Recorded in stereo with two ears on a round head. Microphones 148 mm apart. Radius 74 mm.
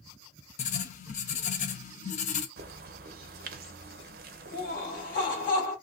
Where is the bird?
60° right (ahead or behind), 0.5 m.